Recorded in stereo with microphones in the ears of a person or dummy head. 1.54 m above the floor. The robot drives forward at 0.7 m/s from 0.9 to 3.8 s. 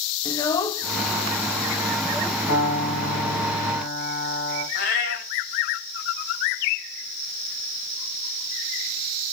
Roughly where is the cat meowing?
Left.